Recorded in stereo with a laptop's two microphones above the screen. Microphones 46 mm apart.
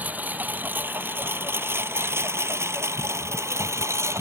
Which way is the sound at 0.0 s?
35° right (ahead or behind).